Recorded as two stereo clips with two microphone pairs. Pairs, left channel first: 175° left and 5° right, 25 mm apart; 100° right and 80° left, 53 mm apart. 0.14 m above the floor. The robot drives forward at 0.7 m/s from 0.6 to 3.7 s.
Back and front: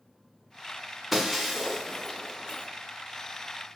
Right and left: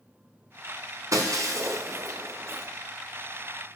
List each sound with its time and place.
1.1 s breaking glass: 80° left, 2 m; by 2.7 s 110° left, 2 m